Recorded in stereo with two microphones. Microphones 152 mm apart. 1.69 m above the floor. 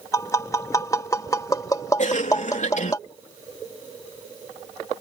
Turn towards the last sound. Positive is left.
turn(degrees=55)  # may be behind; listen again after turning